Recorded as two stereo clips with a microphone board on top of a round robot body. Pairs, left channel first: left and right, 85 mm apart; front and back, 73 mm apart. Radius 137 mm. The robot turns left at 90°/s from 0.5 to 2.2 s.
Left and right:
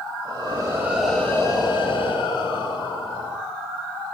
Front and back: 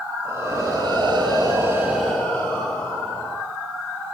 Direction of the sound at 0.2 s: 130° right.